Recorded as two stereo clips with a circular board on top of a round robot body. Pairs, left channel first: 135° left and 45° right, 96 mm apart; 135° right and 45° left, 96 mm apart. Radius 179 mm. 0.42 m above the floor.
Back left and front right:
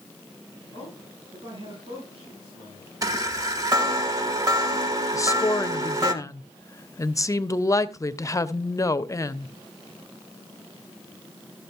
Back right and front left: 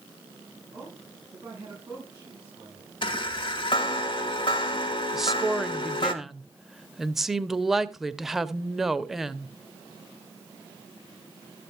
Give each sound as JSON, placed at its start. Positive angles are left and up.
{"t": 0.7, "sound": "a man speaking", "azimuth_deg": -15, "distance_m": 9.0}
{"t": 3.0, "sound": "a chime", "azimuth_deg": -95, "distance_m": 1.2}
{"t": 5.1, "sound": "a woman speaking", "azimuth_deg": 130, "distance_m": 0.9}